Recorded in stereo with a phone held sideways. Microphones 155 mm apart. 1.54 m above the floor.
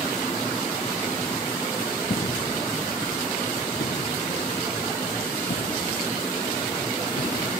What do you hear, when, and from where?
2.1 s footsteps: 45° left (ahead or behind); by 7.5 s 75° left (ahead or behind)